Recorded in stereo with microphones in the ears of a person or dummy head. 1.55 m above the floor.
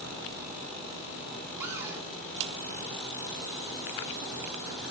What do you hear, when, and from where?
1.6 s a cupboard door: 10° right (ahead or behind), 0.6 m